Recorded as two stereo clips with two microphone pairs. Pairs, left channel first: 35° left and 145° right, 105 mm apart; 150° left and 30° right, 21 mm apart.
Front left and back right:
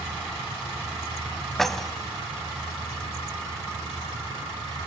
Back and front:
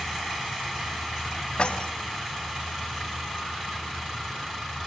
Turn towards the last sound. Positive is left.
turn(degrees=120)